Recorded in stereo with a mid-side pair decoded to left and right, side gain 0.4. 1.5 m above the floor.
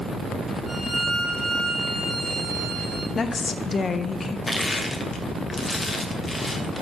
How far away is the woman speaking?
About 0.9 m.